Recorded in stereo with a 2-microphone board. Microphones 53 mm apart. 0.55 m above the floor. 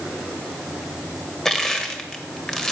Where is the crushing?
10° left (ahead or behind), 1.4 m.